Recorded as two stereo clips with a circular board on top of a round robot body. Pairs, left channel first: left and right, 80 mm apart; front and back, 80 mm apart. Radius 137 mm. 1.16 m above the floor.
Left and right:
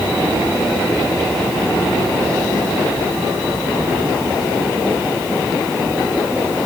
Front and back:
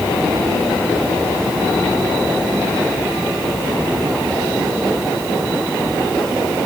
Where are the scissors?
I don't hear scissors.